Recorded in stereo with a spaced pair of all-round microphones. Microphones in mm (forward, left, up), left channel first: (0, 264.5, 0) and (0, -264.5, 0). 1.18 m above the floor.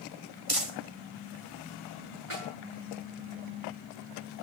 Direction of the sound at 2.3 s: 75° right (ahead or behind).